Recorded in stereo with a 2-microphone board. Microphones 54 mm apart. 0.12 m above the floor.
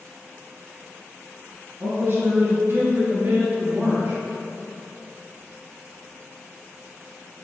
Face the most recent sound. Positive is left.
turn(degrees=-45)  # may be behind; listen again after turning